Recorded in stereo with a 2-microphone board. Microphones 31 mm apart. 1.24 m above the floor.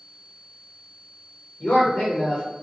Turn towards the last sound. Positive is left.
turn(degrees=70)  # may be behind; listen again after turning